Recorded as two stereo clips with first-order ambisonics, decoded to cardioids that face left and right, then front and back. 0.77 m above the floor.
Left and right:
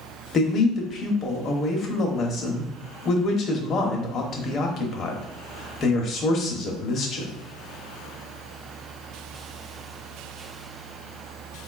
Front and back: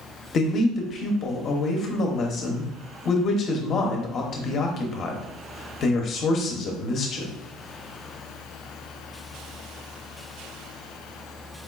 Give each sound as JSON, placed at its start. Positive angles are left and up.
{"t": 0.3, "sound": "a man speaking", "azimuth_deg": 40, "distance_m": 0.8}